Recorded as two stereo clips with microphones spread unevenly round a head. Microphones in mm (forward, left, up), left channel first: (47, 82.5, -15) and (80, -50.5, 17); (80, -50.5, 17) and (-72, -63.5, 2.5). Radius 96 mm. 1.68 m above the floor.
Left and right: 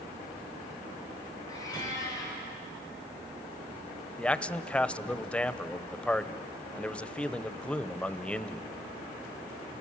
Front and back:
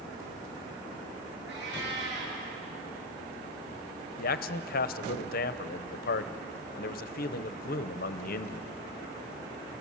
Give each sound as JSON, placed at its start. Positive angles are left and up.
{"t": 1.5, "sound": "a cat meowing", "azimuth_deg": 180, "distance_m": 6.5}
{"t": 4.2, "sound": "a man speaking", "azimuth_deg": 15, "distance_m": 0.8}